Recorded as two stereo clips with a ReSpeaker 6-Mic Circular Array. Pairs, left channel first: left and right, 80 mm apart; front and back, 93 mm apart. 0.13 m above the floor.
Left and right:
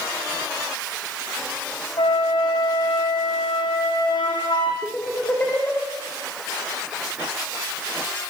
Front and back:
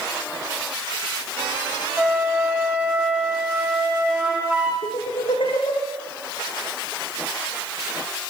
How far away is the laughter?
About 6 m.